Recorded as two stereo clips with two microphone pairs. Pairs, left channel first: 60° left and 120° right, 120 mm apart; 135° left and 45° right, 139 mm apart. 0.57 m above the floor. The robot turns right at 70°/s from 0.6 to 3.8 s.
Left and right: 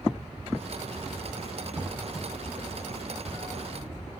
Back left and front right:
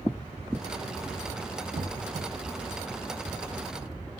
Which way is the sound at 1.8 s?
55° right.